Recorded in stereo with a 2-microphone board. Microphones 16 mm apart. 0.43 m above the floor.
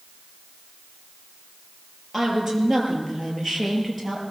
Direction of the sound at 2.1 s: Centre (ahead or behind).